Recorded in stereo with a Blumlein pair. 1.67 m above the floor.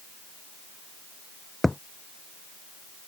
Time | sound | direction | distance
1.6 | a thud | 5° left | ?